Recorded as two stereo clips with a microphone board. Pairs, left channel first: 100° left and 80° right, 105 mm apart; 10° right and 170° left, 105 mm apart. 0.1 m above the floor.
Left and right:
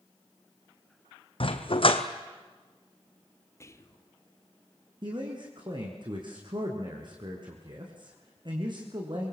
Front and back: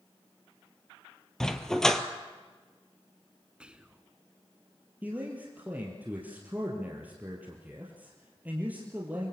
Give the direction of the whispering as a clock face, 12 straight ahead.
9 o'clock.